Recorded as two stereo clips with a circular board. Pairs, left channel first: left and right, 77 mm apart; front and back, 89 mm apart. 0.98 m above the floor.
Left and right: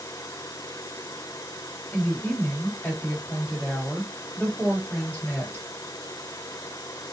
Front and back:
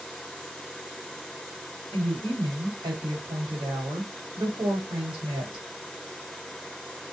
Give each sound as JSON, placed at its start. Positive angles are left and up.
{"t": 1.9, "sound": "a woman speaking", "azimuth_deg": 160, "distance_m": 1.5}